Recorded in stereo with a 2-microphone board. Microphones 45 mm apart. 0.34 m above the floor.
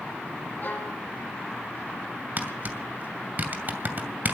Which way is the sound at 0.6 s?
50° left (ahead or behind).